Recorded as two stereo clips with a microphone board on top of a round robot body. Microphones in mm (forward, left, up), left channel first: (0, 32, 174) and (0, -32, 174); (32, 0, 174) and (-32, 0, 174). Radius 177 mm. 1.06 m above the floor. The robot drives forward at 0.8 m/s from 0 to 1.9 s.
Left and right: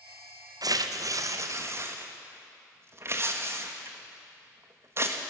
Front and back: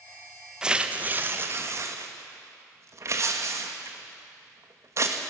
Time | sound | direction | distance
0.6 | tearing paper | 100° right | 1.2 m